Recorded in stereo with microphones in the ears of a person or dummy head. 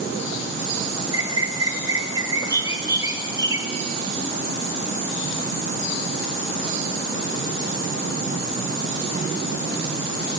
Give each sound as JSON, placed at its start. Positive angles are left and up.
{"t": 1.1, "sound": "a bird", "side_deg": -15, "distance_m": 1.0}